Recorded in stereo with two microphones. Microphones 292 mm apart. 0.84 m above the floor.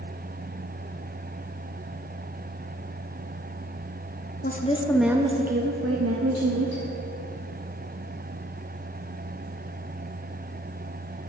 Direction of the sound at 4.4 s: 30° left (ahead or behind).